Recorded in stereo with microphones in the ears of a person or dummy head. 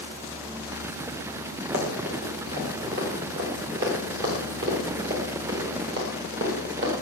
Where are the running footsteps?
70° right (ahead or behind), 6.5 m; by 7.0 s 60° right (ahead or behind), 10 m.